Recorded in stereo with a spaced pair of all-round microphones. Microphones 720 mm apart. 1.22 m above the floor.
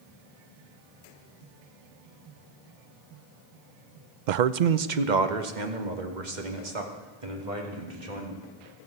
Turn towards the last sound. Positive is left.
turn(degrees=-80)